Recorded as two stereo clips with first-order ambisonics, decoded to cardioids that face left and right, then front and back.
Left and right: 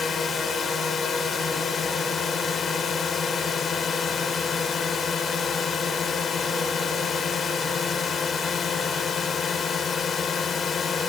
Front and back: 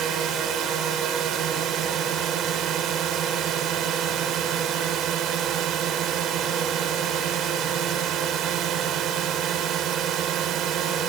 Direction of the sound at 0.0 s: 145° left.